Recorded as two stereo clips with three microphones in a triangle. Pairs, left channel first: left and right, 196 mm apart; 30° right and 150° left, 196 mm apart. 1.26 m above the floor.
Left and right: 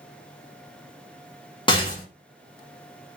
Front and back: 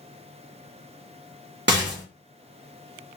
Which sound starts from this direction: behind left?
A rattle, at 1.7 s.